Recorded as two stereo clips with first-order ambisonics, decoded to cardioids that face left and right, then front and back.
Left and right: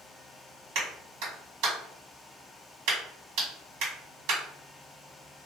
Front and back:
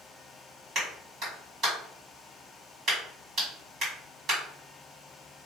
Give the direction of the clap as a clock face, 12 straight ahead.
4 o'clock.